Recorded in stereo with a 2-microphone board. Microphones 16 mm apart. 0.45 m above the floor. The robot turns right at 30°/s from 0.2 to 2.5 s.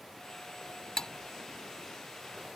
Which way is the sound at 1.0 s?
35° left (ahead or behind).